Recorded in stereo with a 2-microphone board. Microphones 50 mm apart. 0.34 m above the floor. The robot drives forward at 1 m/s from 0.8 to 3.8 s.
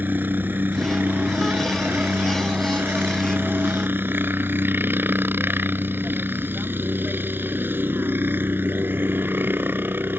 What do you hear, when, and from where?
0.0 s a helicopter: 45° right (ahead or behind)